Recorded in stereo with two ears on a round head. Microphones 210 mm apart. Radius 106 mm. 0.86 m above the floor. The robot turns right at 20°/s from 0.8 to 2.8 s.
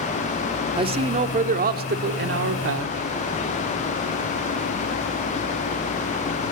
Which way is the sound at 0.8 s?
155° right.